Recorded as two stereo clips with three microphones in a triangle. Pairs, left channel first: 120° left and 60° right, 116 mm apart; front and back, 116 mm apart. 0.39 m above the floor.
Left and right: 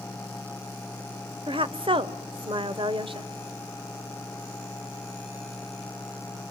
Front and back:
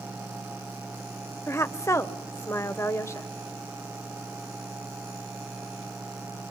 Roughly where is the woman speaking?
Ahead right.